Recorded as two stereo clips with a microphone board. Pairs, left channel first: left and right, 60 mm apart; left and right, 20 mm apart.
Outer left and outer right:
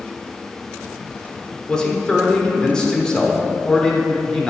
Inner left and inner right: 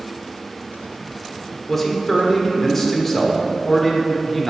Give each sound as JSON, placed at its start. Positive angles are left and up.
{"t": 1.7, "sound": "a man speaking", "side_deg": 15, "distance_m": 1.0}